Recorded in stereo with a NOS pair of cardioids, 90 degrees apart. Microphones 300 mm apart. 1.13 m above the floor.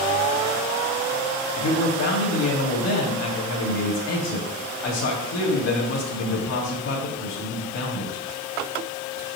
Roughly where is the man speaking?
Ahead left.